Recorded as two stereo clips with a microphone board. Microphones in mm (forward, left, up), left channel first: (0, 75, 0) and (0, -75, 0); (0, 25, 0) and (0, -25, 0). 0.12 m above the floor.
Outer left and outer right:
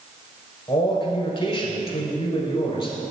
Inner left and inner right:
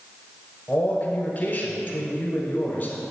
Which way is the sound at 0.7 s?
30° left (ahead or behind).